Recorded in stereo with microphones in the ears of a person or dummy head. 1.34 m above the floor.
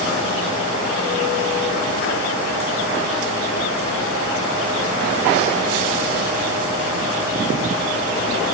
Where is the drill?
I don't hear a drill.